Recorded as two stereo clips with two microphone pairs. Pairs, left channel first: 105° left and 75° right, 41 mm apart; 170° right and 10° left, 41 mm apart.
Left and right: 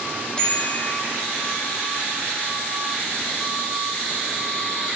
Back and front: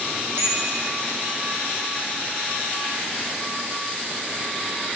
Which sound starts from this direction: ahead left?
A bicycle bell, at 0.4 s.